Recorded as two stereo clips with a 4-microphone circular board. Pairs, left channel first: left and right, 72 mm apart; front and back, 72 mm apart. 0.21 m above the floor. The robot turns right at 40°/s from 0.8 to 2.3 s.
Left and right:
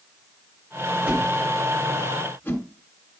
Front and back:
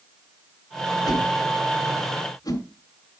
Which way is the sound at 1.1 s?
20° right.